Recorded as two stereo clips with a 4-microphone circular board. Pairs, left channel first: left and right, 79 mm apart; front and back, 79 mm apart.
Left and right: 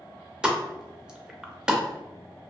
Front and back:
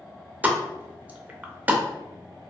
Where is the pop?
155° right, 0.5 m.